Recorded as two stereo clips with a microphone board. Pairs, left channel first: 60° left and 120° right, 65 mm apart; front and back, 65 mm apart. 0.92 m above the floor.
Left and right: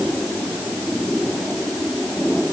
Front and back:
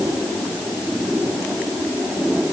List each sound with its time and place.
Only background noise.